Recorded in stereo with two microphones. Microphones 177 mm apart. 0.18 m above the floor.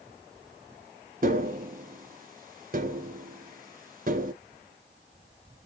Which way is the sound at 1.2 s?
50° right (ahead or behind).